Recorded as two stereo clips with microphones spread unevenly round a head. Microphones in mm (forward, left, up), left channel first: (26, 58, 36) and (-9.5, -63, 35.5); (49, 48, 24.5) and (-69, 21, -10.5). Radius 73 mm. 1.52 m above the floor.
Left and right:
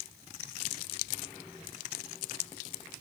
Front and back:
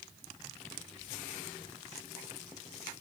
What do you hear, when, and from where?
Only background noise.